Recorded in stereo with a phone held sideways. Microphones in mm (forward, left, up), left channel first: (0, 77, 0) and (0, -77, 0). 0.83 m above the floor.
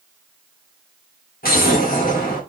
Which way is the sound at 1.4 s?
75° left (ahead or behind).